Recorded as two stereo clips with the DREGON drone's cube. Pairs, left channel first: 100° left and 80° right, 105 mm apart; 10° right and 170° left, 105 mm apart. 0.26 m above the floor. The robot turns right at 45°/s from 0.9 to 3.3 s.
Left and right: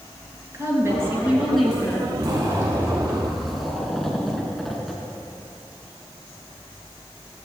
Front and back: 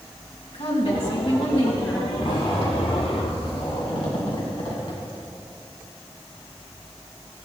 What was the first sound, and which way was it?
A woman speaking, 20° right.